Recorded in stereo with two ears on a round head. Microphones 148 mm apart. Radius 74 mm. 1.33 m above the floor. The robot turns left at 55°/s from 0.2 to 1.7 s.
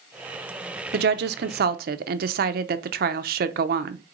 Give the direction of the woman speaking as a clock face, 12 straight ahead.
2 o'clock.